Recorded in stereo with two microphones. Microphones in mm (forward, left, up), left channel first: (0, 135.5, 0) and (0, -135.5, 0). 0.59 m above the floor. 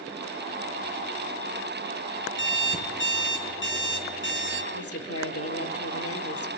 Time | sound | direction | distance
2.4 | an alarm clock | 45° left (ahead or behind) | 4 m
4.7 | a woman speaking | 60° left (ahead or behind) | 1.6 m